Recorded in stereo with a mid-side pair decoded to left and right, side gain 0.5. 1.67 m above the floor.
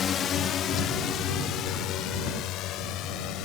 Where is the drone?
45° left; by 3.5 s 75° left.